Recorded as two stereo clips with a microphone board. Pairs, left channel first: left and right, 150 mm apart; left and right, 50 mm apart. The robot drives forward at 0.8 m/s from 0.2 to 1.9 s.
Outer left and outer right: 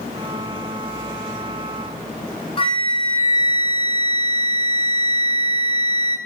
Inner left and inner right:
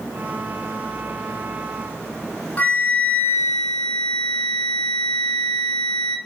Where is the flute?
40° left (ahead or behind), 1.7 m.